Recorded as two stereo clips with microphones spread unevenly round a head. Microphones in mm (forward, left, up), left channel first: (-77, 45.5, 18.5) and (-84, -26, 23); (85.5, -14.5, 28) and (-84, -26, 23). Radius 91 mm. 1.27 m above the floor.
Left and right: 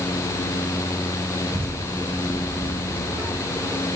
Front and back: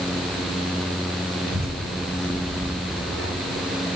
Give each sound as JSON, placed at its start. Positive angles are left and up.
{"t": 1.5, "sound": "a child speaking", "azimuth_deg": -145, "distance_m": 7.0}